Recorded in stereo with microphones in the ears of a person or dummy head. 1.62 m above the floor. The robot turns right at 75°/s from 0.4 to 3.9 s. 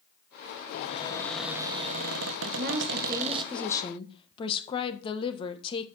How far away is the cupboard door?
About 1.7 m.